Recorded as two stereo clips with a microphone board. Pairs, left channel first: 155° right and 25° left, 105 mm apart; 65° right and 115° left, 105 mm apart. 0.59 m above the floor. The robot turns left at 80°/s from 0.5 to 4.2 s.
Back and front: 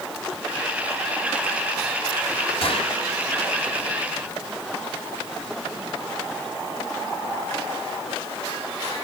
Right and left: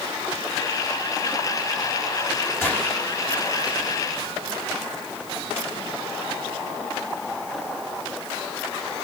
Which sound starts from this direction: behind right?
A gunshot, at 2.6 s.